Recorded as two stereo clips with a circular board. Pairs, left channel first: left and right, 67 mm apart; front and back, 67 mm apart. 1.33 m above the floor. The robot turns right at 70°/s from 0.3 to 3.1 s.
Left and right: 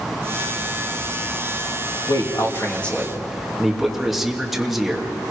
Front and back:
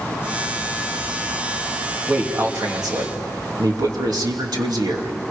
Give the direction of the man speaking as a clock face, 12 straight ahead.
8 o'clock.